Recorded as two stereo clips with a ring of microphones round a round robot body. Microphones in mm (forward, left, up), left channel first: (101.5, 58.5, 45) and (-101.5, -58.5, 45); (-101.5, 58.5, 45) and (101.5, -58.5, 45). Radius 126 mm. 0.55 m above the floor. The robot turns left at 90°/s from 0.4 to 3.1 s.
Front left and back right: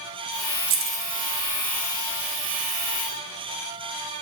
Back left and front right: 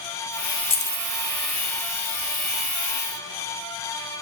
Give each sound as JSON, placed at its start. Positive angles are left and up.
{"t": 0.7, "sound": "keys jangling", "azimuth_deg": -145, "distance_m": 0.6}